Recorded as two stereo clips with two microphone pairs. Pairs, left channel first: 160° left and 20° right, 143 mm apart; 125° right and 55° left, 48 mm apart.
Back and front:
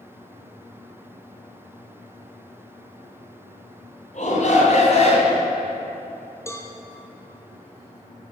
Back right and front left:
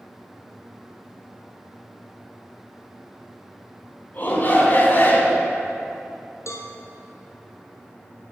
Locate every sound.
4.1 s a shout: 175° right, 3.5 m; by 5.5 s 165° right, 3 m
6.5 s a cowbell: 130° right, 1.8 m